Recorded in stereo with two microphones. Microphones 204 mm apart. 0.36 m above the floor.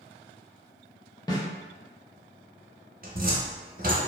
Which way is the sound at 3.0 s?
45° right (ahead or behind).